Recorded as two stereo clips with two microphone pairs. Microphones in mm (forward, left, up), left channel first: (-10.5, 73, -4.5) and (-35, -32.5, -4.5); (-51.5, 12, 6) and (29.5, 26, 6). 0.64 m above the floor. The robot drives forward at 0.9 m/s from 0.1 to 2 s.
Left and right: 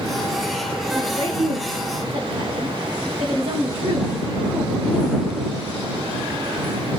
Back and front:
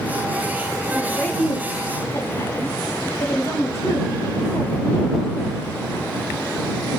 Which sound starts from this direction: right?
A woman speaking, at 0.9 s.